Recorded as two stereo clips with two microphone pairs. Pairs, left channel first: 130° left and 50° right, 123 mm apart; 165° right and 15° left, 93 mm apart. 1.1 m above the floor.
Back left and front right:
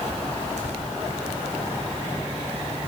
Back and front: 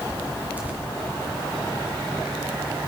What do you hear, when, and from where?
0.6 s tearing paper: 55° right, 2 m